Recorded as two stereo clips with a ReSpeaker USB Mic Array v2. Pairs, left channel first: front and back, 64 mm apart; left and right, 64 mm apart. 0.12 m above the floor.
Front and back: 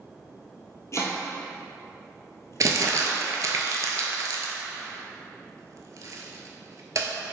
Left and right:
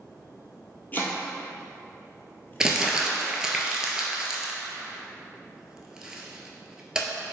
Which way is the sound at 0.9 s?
35° left.